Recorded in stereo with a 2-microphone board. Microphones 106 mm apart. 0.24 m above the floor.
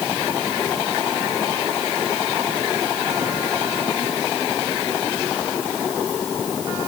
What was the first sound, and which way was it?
Only background noise.